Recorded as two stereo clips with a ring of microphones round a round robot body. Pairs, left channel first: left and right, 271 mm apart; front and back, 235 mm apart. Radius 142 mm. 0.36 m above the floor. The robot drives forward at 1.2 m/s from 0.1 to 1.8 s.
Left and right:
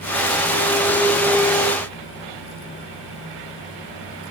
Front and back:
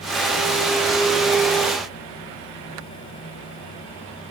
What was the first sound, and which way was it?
Only background noise.